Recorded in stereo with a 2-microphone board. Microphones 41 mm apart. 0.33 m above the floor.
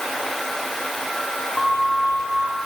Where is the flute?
25° left (ahead or behind), 7.5 m.